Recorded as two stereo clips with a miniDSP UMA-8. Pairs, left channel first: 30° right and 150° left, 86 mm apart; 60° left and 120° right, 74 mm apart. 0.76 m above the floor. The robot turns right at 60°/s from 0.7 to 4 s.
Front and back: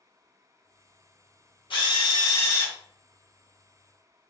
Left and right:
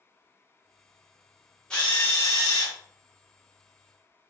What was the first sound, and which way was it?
A drill, 20° right.